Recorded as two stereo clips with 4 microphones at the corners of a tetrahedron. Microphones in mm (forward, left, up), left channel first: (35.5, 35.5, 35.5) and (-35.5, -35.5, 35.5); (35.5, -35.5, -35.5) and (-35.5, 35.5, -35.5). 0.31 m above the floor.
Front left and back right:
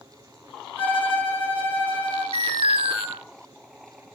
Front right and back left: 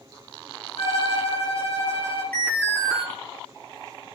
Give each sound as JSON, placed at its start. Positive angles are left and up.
{"t": 0.8, "sound": "a violin", "azimuth_deg": -65, "distance_m": 9.5}
{"t": 2.3, "sound": "an alarm", "azimuth_deg": -115, "distance_m": 7.0}